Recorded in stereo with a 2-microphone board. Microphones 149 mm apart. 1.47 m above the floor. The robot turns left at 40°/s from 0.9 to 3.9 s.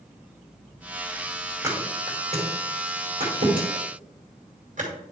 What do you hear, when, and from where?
1.6 s a thud: 20° right (ahead or behind), 2.5 m; by 4.9 s 55° right (ahead or behind), 2.5 m